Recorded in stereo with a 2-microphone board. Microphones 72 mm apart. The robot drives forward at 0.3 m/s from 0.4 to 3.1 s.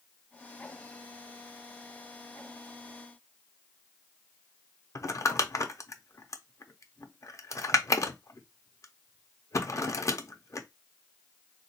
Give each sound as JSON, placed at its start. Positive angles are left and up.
{"t": 5.0, "sound": "crumpling", "side_deg": 45, "distance_m": 0.5}